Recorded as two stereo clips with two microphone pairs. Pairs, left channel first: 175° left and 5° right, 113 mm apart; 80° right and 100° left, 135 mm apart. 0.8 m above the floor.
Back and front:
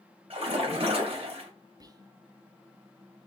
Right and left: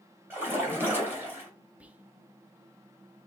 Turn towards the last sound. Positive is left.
turn(degrees=25)